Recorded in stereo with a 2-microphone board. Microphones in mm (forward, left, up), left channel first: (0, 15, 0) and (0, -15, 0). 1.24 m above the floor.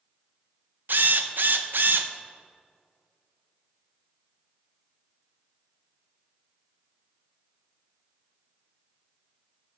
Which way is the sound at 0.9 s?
75° right (ahead or behind).